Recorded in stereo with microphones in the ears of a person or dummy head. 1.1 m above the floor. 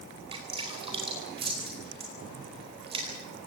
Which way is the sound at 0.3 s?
25° right (ahead or behind).